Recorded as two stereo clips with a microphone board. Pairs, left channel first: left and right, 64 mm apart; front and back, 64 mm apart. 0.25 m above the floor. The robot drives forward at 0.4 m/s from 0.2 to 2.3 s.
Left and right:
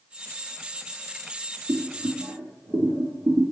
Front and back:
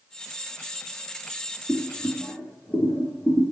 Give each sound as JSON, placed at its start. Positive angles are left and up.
{"t": 1.7, "sound": "boiling", "azimuth_deg": -70, "distance_m": 4.5}